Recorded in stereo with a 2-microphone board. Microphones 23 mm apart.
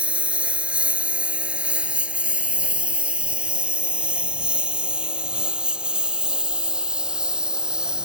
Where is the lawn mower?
70° right (ahead or behind); by 8.1 s 35° right (ahead or behind).